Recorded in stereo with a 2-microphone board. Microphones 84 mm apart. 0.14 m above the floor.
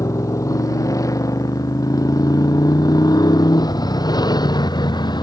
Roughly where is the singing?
I don't hear singing.